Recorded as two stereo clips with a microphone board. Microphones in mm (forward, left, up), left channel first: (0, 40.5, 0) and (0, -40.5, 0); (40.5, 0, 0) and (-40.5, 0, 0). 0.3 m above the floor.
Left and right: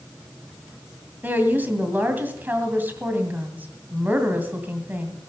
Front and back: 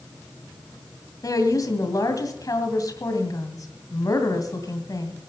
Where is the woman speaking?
25° right, 2.5 m.